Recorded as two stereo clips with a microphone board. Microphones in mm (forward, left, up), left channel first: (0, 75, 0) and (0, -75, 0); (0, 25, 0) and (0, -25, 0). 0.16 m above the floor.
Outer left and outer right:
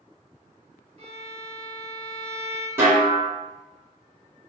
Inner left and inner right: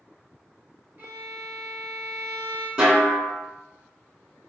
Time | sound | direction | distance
1.0 | a violin | 45° right (ahead or behind) | 0.8 m
2.8 | a snare drum | 15° right (ahead or behind) | 1.2 m